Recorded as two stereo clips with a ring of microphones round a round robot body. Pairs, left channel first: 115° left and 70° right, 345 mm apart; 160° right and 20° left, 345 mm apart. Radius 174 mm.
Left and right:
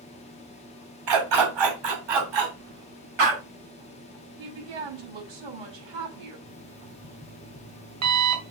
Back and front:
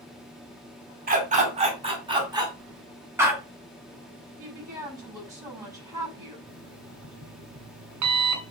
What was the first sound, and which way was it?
A dog barking, 45° right.